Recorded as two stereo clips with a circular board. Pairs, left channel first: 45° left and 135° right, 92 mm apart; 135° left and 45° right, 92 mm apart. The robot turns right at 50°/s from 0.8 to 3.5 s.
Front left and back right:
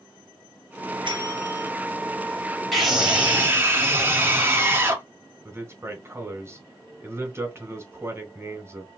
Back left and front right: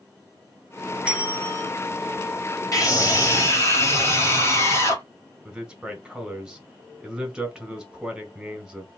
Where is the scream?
130° left, 1.8 m; by 5.0 s 170° left, 1.8 m.